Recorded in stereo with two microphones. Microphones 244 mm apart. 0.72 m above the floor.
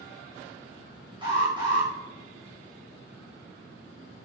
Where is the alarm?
20° right (ahead or behind), 5.5 m.